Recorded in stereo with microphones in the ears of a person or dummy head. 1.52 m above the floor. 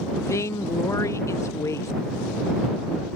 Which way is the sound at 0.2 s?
15° left (ahead or behind).